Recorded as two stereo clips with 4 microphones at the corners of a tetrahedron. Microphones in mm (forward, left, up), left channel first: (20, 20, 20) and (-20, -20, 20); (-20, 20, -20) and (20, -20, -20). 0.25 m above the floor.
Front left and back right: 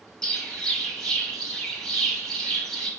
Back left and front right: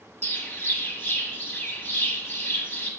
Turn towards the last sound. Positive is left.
turn(degrees=115)